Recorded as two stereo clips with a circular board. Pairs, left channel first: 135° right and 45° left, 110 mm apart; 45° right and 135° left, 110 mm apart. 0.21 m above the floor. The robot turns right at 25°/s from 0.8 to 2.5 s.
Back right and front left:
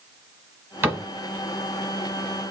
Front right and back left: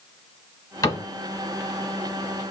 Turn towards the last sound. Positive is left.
turn(degrees=35)